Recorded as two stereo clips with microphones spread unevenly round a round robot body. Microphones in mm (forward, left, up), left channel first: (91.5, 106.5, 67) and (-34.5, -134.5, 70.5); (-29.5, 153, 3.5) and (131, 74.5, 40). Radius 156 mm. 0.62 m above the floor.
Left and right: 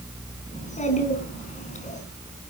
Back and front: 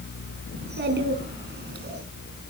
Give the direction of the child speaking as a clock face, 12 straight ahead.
12 o'clock.